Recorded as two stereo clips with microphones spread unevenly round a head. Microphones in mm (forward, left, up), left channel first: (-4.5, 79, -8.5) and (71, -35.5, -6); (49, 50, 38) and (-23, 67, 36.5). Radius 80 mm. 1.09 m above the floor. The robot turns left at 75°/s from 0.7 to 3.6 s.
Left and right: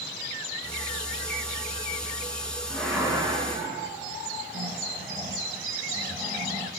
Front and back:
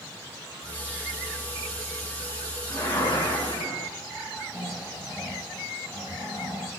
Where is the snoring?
60° right, 4 m.